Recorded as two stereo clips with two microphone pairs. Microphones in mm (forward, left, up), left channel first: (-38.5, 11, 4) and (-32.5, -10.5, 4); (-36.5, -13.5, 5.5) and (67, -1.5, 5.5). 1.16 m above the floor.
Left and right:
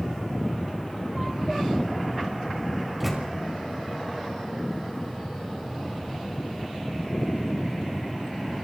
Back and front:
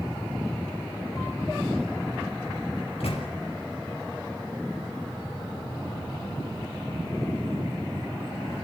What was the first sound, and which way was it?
A microwave, 160° right.